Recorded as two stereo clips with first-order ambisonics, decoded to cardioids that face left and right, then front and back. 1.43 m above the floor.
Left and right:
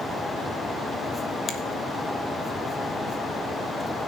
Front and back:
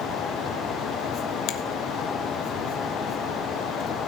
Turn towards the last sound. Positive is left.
turn(degrees=25)